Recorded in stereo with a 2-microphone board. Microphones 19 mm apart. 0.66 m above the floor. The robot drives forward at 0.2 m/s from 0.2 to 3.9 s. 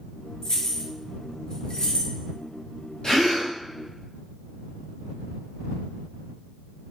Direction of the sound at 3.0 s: 40° left (ahead or behind).